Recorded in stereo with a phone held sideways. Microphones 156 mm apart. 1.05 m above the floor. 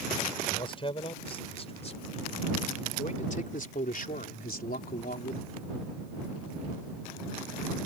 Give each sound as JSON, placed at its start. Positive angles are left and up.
{"t": 0.5, "sound": "a man speaking", "side_deg": 35}